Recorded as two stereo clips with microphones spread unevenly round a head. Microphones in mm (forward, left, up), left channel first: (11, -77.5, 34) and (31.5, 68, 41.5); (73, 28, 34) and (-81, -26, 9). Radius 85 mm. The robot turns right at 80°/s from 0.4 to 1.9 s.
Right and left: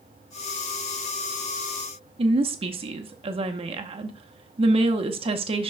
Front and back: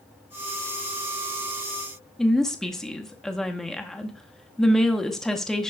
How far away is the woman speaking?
About 0.8 m.